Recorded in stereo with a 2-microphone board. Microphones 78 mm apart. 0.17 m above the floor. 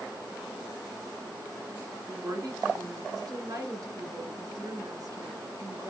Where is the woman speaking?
50° right (ahead or behind), 2 m.